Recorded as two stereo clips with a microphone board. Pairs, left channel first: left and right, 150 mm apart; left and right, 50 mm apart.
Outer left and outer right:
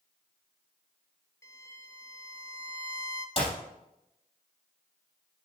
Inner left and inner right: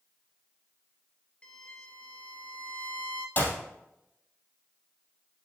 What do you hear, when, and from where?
1.4 s a violin: 20° left (ahead or behind), 0.7 m
3.4 s a clap: 40° left (ahead or behind), 3 m